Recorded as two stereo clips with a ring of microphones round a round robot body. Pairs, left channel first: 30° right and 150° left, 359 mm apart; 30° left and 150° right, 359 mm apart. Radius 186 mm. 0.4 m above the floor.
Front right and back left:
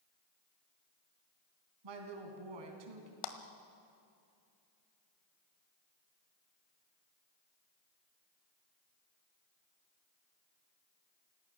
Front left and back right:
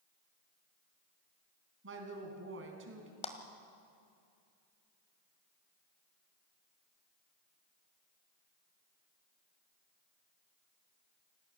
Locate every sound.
1.8 s a woman speaking: 155° left, 3.5 m
3.2 s a clap: 45° right, 1.6 m